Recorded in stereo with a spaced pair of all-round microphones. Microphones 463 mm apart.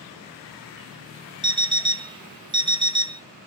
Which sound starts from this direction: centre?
An alarm clock, at 1.4 s.